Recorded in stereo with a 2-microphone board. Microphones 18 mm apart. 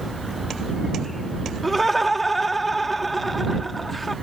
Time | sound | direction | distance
1.6 | laughter | 10° left (ahead or behind) | ?